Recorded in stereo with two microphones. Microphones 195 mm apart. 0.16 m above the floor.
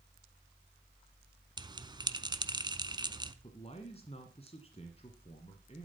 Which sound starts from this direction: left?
A man speaking, at 3.4 s.